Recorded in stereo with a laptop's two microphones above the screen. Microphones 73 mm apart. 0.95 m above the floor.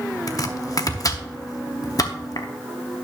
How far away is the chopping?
About 0.7 m.